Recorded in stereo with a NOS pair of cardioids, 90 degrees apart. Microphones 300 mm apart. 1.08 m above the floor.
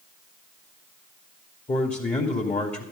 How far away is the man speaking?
About 2.5 m.